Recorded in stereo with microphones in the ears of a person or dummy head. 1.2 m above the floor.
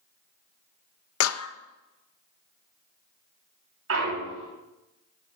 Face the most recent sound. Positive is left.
turn(degrees=-70)  # may be behind; listen again after turning